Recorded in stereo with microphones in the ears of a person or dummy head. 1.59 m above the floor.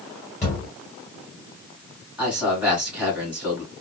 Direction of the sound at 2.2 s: 15° right (ahead or behind).